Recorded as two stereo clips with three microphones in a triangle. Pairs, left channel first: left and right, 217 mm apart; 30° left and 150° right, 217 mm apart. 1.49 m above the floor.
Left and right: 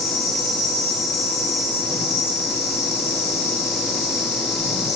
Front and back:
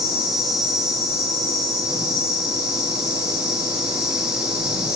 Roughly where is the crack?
No crack in this recording.